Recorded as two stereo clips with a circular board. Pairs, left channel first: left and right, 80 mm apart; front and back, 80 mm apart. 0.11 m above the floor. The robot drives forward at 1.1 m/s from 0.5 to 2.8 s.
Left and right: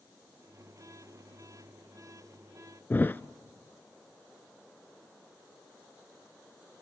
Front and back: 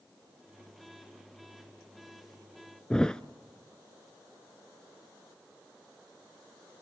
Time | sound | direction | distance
2.9 | a thud | 65° left | 0.5 m